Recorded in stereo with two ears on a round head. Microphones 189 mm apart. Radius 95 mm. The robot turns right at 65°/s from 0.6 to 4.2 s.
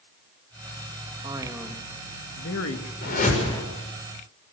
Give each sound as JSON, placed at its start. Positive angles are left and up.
{"t": 1.2, "sound": "a man speaking", "azimuth_deg": -25, "distance_m": 1.9}
{"t": 3.0, "sound": "a whoosh", "side_deg": 55, "distance_m": 6.5}